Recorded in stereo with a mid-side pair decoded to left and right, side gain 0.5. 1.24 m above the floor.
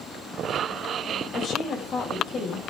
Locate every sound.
1.3 s a woman speaking: 55° left, 6 m